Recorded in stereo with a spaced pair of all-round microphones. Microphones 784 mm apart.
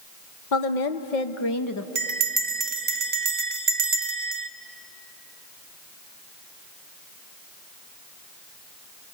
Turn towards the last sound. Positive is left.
turn(degrees=-60)  # may be behind; listen again after turning